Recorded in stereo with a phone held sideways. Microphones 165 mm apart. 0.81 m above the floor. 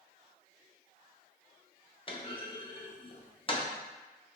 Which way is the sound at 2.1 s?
35° left (ahead or behind).